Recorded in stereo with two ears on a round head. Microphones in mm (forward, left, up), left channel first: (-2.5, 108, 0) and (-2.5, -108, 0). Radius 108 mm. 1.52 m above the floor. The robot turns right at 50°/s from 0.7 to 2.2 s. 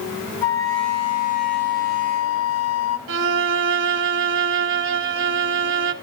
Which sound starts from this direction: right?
A violin, at 3.1 s.